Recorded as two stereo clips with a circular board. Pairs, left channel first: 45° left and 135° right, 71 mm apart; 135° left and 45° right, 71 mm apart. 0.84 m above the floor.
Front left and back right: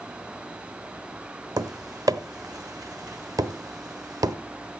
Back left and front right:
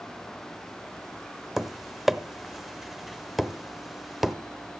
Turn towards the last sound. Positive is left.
turn(degrees=-130)